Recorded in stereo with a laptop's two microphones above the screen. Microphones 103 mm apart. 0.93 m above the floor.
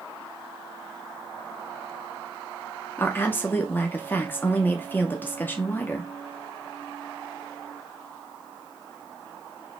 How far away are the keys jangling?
I don't hear keys jangling.